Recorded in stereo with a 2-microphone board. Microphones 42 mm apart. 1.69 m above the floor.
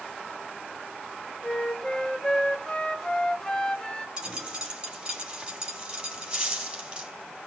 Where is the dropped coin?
20° right (ahead or behind), 4.5 m.